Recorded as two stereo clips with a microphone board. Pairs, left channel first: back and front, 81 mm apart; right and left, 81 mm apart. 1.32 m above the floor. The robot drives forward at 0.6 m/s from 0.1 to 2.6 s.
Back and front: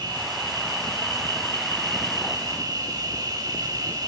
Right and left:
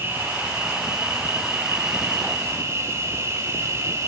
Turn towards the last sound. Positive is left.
turn(degrees=35)